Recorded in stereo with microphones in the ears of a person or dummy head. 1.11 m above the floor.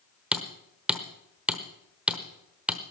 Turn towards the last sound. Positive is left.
turn(degrees=-5)  # may be behind; listen again after turning